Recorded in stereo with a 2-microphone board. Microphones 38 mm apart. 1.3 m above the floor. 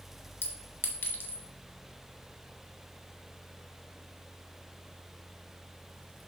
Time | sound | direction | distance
0.4 | a clink | 70° left (ahead or behind) | 1.2 m